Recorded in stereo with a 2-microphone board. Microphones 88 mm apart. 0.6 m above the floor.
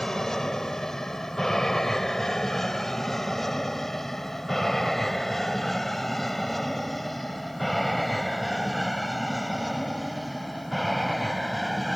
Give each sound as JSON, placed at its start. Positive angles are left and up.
{"t": 0.0, "sound": "an aircraft", "side_deg": 5}